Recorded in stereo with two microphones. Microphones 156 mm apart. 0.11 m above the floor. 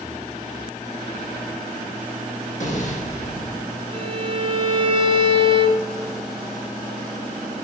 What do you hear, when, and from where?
2.6 s an explosion: 55° left (ahead or behind), 4.5 m
3.9 s a violin: 35° right (ahead or behind), 1.3 m